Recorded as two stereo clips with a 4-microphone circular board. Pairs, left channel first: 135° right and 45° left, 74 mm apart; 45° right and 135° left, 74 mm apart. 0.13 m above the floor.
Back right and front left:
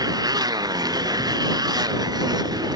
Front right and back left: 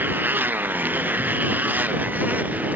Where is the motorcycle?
70° left; by 2.8 s 65° left.